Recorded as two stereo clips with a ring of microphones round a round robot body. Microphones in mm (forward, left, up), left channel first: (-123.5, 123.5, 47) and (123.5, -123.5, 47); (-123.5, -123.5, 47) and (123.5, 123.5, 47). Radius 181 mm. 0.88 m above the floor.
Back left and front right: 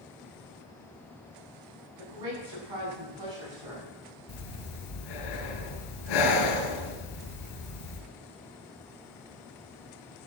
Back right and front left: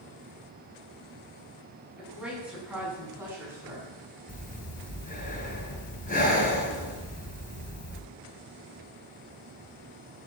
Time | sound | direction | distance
2.0 | a woman speaking | 45° right | 9.5 m
4.3 | breathing | 155° left | 4 m